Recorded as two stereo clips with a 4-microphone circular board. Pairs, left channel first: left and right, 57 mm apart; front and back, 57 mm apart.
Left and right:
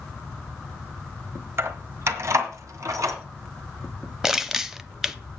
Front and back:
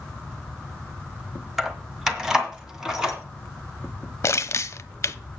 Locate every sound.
1.6 s keys jangling: 100° right, 1.1 m; by 3.2 s 105° right, 2.5 m
4.2 s crushing: 10° right, 0.5 m